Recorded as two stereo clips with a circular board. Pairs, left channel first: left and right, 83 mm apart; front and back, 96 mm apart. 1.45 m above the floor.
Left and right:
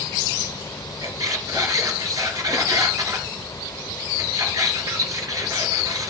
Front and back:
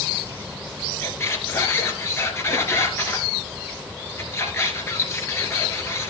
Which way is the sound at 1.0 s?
55° right.